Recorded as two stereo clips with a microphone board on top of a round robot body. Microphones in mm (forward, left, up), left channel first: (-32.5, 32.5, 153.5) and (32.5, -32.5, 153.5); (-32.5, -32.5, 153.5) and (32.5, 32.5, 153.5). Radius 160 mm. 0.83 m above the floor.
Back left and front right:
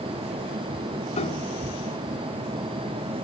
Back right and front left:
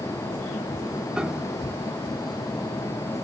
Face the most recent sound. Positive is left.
turn(degrees=130)